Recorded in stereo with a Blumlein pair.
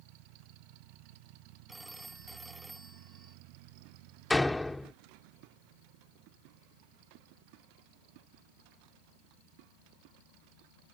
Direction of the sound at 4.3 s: 5° left.